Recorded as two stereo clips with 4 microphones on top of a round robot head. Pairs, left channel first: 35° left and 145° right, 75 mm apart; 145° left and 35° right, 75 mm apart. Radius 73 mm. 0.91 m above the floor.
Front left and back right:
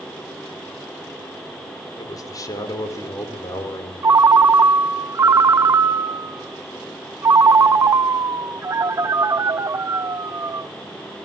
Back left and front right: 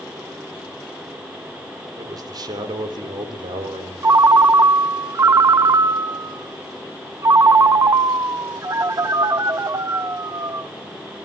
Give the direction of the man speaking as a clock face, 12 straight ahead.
12 o'clock.